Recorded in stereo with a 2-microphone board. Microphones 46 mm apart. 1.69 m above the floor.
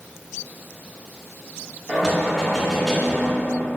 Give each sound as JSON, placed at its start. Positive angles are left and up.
{"t": 1.9, "sound": "knocking", "side_deg": 5, "distance_m": 1.1}